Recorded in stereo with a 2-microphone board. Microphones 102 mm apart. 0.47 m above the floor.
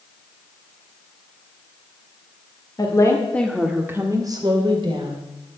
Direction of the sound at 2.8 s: 35° left (ahead or behind).